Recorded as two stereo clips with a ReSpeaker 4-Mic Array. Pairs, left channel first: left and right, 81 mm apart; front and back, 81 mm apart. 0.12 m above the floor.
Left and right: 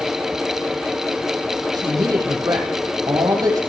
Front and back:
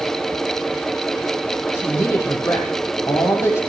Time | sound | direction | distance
1.7 | a woman speaking | 55° right | 5 m